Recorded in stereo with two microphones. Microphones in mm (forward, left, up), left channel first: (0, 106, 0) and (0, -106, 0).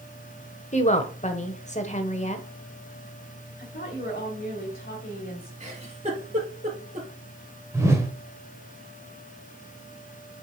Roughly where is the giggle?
Right.